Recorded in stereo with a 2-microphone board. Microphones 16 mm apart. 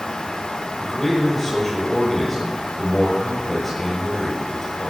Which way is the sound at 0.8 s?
10° left (ahead or behind).